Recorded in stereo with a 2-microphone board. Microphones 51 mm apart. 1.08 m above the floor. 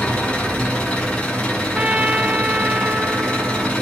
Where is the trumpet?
30° right (ahead or behind), 0.7 m.